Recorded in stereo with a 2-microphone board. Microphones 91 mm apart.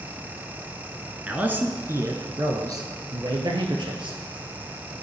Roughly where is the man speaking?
Centre.